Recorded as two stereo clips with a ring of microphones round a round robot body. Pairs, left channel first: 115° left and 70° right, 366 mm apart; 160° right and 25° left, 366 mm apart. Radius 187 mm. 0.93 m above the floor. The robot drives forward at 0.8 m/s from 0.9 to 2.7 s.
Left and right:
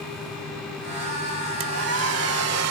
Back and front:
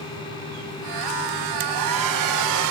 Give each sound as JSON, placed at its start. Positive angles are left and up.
{"t": 1.6, "sound": "a hair dryer", "azimuth_deg": -10}